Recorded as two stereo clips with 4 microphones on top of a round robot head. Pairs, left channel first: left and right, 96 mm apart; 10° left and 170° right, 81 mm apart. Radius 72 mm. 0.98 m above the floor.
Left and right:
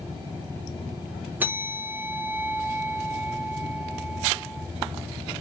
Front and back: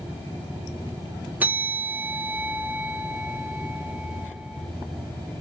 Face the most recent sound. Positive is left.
turn(degrees=-130)